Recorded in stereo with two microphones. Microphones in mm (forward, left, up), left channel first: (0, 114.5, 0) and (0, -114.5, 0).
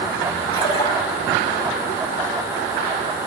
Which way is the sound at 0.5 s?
25° left (ahead or behind).